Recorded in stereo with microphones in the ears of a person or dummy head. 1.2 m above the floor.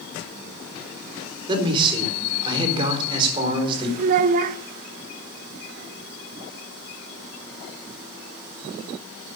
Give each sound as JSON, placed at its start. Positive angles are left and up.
{"t": 1.5, "sound": "a man speaking", "side_deg": -25, "distance_m": 3.5}
{"t": 4.0, "sound": "a child speaking", "side_deg": -50, "distance_m": 0.7}